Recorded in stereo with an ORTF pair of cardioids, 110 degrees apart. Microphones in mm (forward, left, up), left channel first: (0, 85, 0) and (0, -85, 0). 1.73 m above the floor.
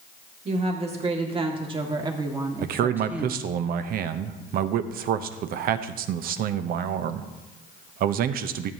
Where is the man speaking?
65° right, 0.8 m.